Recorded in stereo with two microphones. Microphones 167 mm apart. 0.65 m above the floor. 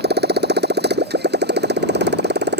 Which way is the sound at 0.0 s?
80° right.